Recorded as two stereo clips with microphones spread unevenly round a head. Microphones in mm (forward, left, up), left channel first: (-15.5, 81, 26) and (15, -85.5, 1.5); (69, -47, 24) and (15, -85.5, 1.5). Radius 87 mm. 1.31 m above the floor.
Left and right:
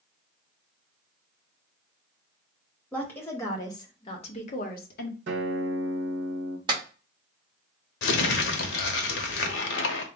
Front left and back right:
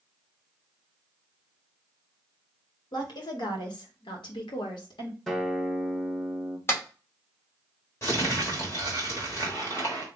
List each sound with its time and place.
2.9 s a woman speaking: 15° left, 1.5 m; by 5.2 s 75° left, 0.8 m
5.3 s a guitar: 50° right, 1.0 m
6.7 s a clap: 15° right, 1.8 m
8.0 s crumpling: 105° left, 0.8 m